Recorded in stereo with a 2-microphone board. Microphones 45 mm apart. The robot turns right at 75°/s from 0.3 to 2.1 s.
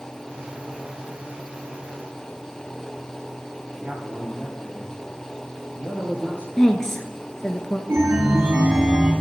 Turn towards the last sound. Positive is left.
turn(degrees=-55)  # may be behind; listen again after turning